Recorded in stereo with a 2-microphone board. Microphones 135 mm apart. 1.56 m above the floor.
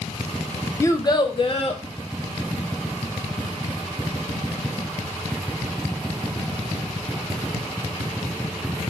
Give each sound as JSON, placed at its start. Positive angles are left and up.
{"t": 0.8, "sound": "a child speaking", "side_deg": 20, "distance_m": 0.6}